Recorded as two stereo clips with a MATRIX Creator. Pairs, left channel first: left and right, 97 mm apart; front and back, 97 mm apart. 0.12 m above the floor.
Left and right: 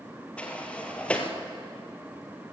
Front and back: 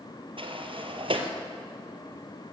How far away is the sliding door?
About 1.9 m.